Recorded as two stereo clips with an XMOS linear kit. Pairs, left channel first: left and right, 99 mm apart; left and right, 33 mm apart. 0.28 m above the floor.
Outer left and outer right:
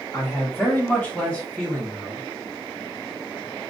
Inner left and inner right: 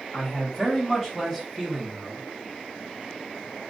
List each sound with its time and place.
0.1 s a man speaking: 25° left (ahead or behind), 1.3 m; by 2.2 s 5° left (ahead or behind), 1.3 m